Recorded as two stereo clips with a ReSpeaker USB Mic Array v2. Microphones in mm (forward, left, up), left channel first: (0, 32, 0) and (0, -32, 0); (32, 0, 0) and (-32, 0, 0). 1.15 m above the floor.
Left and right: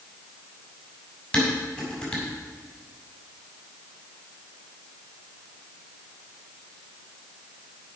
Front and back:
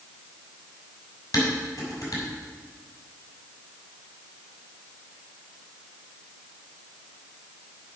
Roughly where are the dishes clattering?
Ahead.